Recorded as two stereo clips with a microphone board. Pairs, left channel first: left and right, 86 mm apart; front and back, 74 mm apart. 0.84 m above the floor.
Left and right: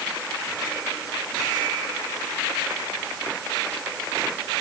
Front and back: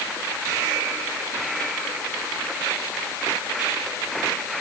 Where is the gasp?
No gasp in this recording.